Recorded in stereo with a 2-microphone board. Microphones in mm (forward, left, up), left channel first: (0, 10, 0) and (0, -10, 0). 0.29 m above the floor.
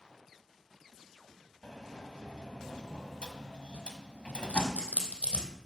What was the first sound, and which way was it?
A sliding door, 50° left (ahead or behind).